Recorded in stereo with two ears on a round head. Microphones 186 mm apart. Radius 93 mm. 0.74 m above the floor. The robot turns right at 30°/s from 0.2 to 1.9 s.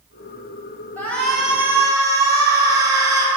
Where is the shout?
10° left (ahead or behind), 3.5 m; by 3.3 s 15° right (ahead or behind), 3.5 m.